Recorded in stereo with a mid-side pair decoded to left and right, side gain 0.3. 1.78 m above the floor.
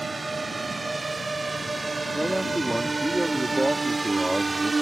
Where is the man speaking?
10° right.